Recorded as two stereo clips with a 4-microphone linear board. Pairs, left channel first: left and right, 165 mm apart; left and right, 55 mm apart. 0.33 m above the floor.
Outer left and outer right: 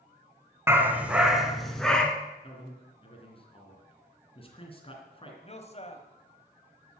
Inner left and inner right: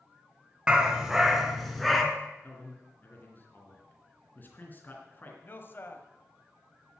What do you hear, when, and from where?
0.7 s a dog barking: 15° right (ahead or behind), 1.5 m; by 2.0 s 5° left (ahead or behind), 2.0 m
2.4 s a man speaking: 35° left (ahead or behind), 3 m
5.4 s a man speaking: 40° left (ahead or behind), 1.8 m